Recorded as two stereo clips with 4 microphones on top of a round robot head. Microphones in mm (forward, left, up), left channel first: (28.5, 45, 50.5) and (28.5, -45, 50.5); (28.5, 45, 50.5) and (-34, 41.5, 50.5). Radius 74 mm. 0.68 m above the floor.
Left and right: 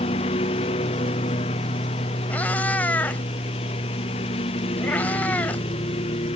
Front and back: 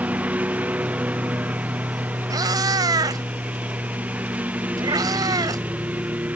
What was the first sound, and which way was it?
A lawn mower, 115° left.